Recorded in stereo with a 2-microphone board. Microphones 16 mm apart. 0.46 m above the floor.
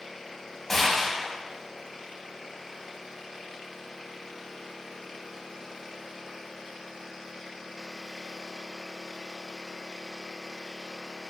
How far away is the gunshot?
About 3 m.